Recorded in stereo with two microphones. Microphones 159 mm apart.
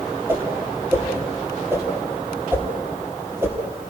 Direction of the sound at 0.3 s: 15° right (ahead or behind).